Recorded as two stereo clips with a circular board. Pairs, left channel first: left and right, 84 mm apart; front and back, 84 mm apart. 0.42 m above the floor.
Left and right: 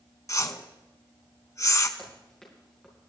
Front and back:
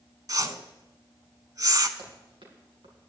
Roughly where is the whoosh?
Behind left.